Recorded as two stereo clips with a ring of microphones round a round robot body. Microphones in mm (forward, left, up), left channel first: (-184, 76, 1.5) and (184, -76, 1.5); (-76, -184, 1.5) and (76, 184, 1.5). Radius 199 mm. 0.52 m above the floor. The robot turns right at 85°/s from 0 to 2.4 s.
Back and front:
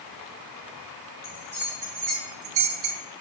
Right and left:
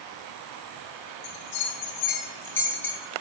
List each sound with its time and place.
1.2 s a bell: 125° right, 2.5 m; by 3.0 s 30° right, 2.5 m